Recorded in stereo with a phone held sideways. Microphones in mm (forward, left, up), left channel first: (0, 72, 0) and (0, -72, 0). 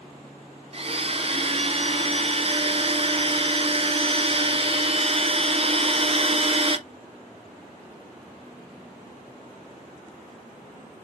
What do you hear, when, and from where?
0.7 s a blender: 40° right (ahead or behind), 0.9 m